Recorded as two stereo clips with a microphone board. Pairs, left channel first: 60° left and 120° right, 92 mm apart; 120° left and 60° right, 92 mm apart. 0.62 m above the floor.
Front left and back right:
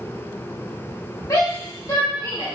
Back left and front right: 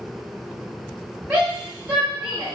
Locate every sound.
1.3 s a shout: 25° left, 2 m